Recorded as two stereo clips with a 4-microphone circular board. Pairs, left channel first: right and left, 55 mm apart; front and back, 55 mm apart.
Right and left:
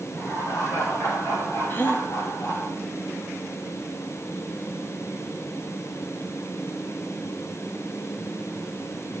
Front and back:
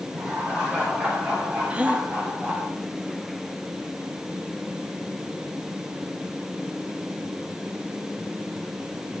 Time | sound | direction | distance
0.1 | laughter | 110° right | 8.5 m
1.7 | a gasp | 120° right | 1.4 m